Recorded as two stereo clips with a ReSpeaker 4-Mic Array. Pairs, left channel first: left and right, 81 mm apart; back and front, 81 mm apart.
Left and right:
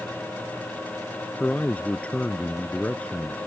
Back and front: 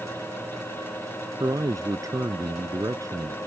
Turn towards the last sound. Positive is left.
turn(degrees=20)